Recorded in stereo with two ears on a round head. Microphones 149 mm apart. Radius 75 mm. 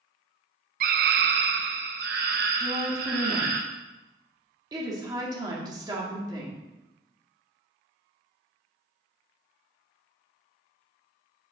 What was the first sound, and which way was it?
A scream, 55° right (ahead or behind).